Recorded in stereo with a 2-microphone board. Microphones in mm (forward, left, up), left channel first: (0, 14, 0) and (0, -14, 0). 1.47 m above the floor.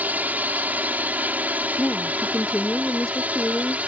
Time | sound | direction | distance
0.0 | a drone | 80° right | ?
1.8 | a woman speaking | 25° left (ahead or behind) | ?